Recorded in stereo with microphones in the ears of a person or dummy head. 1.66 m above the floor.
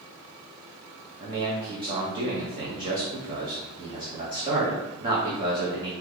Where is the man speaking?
25° right (ahead or behind), 0.8 m.